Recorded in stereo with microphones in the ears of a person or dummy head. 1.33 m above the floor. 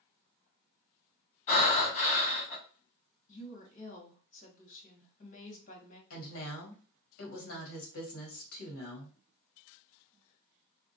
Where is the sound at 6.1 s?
80° left, 1.2 m.